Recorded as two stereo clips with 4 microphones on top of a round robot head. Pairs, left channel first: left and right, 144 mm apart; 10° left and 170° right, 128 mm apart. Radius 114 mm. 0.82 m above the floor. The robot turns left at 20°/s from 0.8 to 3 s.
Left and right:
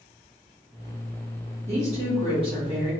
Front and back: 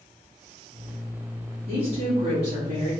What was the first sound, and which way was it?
A woman speaking, 125° right.